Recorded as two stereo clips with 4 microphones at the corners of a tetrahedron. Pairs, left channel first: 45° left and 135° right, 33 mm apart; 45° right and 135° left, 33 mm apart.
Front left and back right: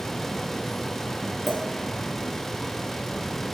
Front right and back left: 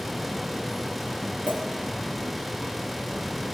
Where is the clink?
135° left, 3.5 m.